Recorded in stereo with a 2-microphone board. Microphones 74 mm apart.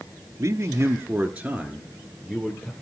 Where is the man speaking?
45° right (ahead or behind), 1.4 m; by 2.7 s 15° left (ahead or behind), 2.0 m.